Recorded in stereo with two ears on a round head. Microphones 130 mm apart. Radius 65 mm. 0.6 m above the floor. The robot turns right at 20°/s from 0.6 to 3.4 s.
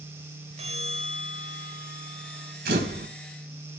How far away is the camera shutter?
About 3 m.